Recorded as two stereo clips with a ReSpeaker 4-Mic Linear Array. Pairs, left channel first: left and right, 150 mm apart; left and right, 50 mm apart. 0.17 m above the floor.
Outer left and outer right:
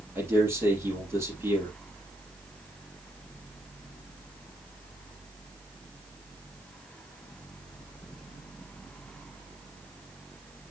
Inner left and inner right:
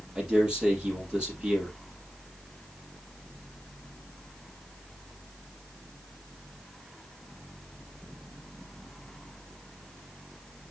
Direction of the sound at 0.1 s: 15° right (ahead or behind).